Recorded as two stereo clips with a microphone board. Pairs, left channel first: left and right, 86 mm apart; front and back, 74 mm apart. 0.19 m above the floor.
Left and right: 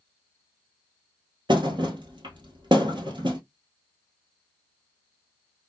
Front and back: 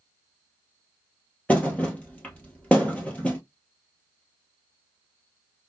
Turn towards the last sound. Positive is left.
turn(degrees=-70)